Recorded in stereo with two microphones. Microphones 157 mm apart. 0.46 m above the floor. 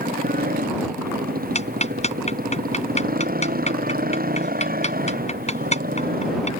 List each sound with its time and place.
0.0 s a motorcycle: 85° right
1.6 s ticking: 50° left (ahead or behind)